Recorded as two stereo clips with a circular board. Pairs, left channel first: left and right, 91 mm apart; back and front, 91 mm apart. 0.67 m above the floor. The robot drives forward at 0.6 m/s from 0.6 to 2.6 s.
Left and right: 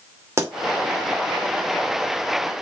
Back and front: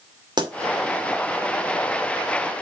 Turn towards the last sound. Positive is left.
turn(degrees=-65)